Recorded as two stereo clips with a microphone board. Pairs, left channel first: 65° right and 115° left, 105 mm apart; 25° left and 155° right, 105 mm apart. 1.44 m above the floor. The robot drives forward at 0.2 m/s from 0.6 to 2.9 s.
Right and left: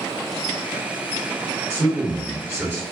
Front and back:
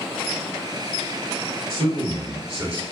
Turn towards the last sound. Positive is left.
turn(degrees=180)